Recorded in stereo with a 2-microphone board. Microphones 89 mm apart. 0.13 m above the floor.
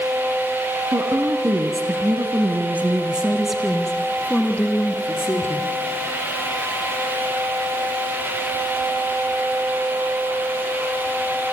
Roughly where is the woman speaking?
Right.